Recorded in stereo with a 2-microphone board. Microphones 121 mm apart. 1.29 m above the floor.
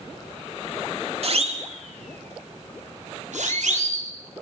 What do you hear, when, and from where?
1.2 s a siren: 55° right (ahead or behind), 3.5 m; by 4.1 s 80° right, 6 m